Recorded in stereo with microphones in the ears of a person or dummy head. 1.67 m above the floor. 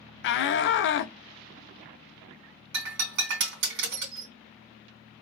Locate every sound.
0.2 s a shout: 60° left (ahead or behind), 0.7 m
2.7 s breaking glass: 60° right (ahead or behind), 2.5 m